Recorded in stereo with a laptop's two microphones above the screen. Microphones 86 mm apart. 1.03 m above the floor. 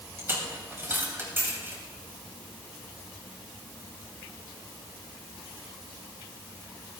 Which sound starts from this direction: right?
A dropped coin, at 0.2 s.